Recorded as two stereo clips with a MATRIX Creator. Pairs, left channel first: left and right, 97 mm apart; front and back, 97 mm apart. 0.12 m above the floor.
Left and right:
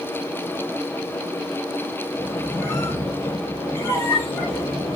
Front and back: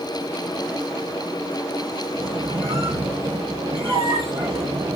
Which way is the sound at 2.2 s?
155° left.